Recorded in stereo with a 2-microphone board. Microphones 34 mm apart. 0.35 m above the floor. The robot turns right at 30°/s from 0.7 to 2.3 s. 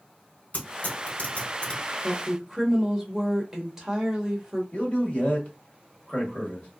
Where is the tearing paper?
60° left (ahead or behind), 1.8 m; by 1.8 s 35° left (ahead or behind), 1.8 m.